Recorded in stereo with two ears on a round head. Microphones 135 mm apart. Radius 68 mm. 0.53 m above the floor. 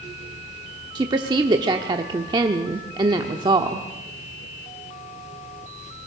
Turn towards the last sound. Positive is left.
turn(degrees=-30)  # may be behind; listen again after turning